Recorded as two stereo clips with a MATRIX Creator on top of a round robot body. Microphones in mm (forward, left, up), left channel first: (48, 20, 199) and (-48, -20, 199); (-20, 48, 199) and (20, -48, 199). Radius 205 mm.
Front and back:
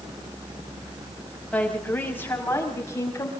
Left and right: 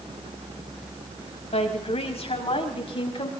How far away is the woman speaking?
About 6.5 m.